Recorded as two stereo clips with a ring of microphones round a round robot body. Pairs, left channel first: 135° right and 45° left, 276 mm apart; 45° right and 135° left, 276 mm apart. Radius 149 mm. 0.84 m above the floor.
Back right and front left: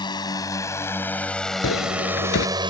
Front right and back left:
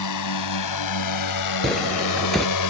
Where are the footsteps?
135° right.